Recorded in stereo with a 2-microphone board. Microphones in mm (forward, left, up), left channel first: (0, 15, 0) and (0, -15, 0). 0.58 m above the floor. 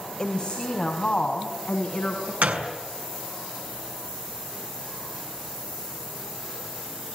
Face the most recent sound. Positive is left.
turn(degrees=-80)